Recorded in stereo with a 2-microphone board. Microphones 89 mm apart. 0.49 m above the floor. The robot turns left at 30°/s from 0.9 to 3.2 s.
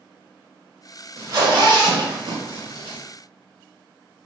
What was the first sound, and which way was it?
A zipper, 45° right (ahead or behind).